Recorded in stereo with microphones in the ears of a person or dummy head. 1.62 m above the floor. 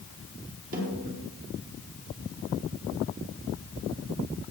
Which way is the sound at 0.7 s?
50° right (ahead or behind).